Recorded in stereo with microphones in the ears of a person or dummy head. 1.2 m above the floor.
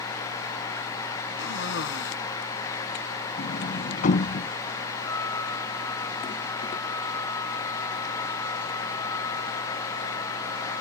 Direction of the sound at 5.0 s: 15° left (ahead or behind).